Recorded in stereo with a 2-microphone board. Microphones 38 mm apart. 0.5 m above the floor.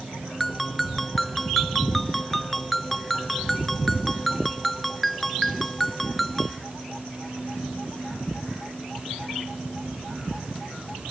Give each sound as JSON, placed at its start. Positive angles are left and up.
{"t": 0.4, "sound": "a ringtone", "side_deg": 10}